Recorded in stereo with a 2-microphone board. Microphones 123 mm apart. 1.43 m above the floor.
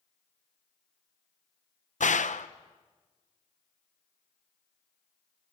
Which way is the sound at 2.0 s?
75° left (ahead or behind).